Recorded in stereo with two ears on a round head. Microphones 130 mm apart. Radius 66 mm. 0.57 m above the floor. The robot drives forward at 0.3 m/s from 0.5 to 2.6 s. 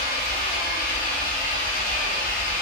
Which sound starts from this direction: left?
An engine running, at 0.0 s.